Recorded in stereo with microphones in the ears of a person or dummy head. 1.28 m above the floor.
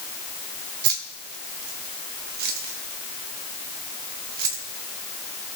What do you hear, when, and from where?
0.8 s keys jangling: 60° right (ahead or behind), 1.3 m